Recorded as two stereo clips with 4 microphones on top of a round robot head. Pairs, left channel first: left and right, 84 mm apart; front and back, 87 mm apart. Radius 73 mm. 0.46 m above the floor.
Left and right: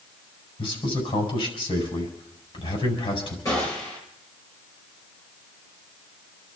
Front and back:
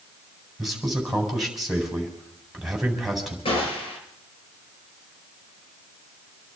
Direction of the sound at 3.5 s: 25° left.